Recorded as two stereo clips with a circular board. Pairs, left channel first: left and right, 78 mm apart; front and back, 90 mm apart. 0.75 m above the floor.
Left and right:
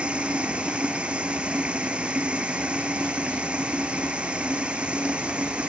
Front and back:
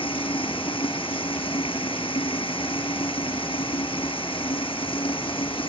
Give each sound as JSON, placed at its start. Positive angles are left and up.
{"t": 0.0, "sound": "running water", "azimuth_deg": -15}